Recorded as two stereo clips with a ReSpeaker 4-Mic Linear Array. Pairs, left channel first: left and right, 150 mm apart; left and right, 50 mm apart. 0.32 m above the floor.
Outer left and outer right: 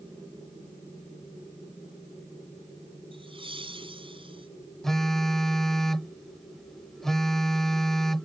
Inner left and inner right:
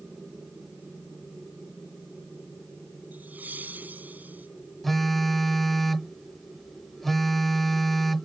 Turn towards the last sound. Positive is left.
turn(degrees=0)  # may be behind; listen again after turning